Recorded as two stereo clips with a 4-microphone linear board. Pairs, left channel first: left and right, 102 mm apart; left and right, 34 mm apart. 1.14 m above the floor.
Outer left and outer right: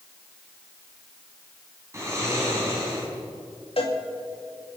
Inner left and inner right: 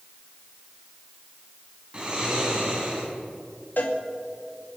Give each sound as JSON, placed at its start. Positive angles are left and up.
{"t": 1.9, "sound": "snoring", "side_deg": -30, "distance_m": 4.0}
{"t": 3.8, "sound": "a cowbell", "side_deg": 65, "distance_m": 2.5}